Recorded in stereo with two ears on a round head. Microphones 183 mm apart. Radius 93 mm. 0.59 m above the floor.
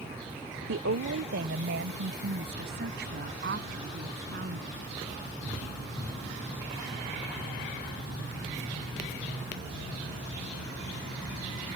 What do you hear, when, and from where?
0.7 s a woman speaking: 60° right (ahead or behind); by 4.8 s 45° right (ahead or behind)